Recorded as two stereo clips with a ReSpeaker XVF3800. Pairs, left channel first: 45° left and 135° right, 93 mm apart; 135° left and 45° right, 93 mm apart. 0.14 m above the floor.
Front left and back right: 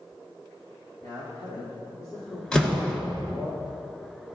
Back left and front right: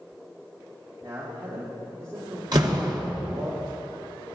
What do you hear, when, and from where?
1.0 s a man speaking: 5° right, 4.5 m
2.5 s a door slam: 35° right, 1.9 m